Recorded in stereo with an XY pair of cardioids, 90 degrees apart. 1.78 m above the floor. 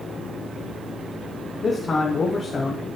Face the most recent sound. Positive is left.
turn(degrees=45)